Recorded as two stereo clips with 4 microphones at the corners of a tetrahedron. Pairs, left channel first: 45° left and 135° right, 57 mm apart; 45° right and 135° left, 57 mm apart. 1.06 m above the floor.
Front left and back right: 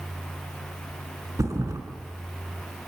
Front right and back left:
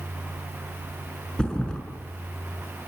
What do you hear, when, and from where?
1.4 s a thud: 120° right, 5 m